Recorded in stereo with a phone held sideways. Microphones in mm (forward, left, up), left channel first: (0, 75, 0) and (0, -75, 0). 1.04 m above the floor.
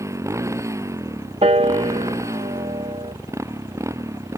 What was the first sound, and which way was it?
A motorcycle, 20° right (ahead or behind).